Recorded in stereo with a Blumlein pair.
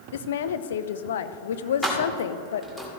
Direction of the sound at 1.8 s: 5° left.